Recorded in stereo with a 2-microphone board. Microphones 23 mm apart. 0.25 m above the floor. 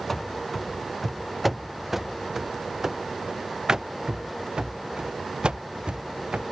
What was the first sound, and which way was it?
Running footsteps, 10° left (ahead or behind).